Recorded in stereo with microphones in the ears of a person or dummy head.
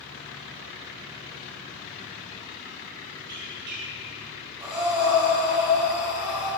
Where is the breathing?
20° right (ahead or behind), 1.9 m.